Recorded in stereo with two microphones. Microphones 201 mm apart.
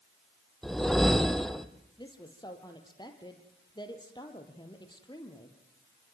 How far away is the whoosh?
About 1.4 m.